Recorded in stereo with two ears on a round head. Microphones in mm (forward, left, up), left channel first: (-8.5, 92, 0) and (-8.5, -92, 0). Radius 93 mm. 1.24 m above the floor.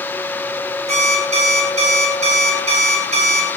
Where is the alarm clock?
30° right (ahead or behind), 3.5 m.